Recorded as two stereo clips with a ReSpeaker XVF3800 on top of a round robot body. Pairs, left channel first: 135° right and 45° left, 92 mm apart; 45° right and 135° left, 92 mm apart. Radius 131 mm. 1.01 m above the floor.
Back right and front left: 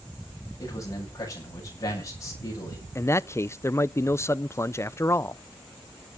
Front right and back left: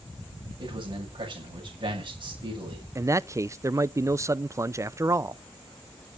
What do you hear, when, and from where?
0.6 s a man speaking: 165° left, 8 m
3.0 s a man speaking: straight behind, 0.6 m